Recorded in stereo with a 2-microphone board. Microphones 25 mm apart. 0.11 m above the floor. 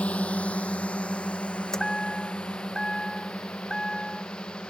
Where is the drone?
65° left (ahead or behind); by 4.7 s 50° left (ahead or behind).